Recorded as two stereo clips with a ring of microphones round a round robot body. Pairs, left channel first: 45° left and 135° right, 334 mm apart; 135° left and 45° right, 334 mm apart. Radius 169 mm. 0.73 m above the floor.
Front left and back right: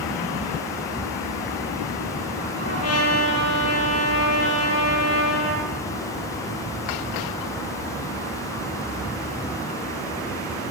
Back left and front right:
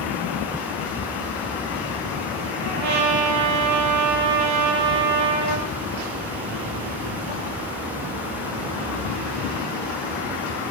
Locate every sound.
2.6 s a trumpet: 5° right, 8 m